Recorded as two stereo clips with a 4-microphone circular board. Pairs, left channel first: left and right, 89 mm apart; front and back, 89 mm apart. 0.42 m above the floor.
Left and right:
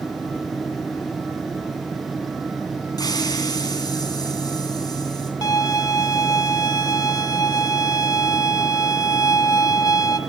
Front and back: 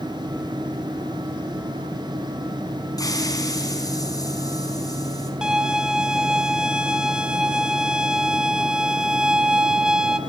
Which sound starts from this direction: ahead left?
A hiss, at 3.0 s.